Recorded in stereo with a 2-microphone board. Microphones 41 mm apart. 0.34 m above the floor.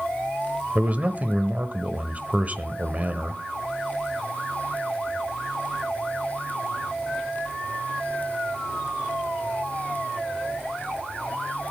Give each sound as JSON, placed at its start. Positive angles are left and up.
{"t": 0.8, "sound": "a man speaking", "side_deg": -40, "distance_m": 1.1}